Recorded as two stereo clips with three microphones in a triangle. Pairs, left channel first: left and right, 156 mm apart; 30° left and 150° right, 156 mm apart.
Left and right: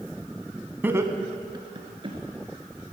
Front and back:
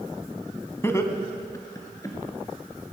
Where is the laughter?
25° right, 1.2 m; by 2.2 s 35° right, 3 m.